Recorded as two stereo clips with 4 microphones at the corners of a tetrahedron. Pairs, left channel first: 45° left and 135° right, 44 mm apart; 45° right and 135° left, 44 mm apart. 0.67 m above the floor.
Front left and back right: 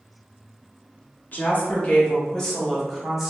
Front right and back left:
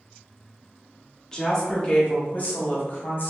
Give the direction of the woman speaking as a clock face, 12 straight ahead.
11 o'clock.